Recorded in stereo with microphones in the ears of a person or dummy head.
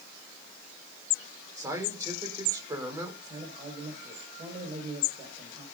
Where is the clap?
No clap in this recording.